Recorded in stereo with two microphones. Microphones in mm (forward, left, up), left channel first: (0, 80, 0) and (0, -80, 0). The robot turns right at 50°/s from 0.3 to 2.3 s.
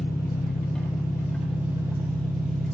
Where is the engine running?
75° left, 2.5 m; by 2.7 s 175° left, 2.5 m.